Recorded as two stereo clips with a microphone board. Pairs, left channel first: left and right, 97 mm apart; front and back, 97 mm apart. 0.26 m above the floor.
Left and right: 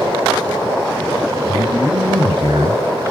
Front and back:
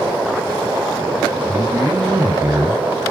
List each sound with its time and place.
1.5 s a man speaking: 120° right, 2.5 m